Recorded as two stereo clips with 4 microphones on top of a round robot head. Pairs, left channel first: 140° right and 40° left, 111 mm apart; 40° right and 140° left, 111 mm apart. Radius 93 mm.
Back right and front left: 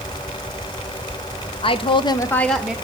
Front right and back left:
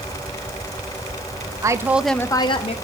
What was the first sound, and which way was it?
A woman speaking, 165° right.